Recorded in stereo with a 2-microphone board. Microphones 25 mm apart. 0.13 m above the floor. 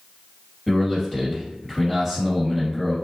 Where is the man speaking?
10° left (ahead or behind), 1.6 m.